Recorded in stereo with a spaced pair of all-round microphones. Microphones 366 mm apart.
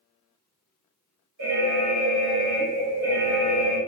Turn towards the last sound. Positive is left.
turn(degrees=-50)  # may be behind; listen again after turning